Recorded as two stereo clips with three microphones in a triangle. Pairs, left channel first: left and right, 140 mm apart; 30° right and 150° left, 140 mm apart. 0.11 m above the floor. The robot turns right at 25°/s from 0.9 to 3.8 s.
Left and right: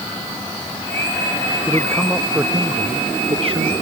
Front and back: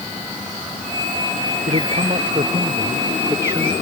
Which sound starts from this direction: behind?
A man speaking, at 1.7 s.